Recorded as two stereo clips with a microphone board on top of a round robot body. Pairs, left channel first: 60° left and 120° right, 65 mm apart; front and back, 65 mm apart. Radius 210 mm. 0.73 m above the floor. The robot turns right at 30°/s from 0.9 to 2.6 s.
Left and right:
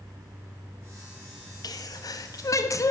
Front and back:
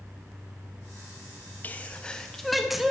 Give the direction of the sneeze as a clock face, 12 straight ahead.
10 o'clock.